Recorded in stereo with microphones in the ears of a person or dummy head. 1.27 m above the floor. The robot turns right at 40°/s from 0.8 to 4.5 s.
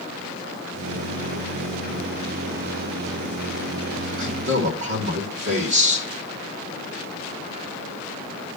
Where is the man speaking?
50° right (ahead or behind), 3 m; by 6.1 s 65° right (ahead or behind), 3 m.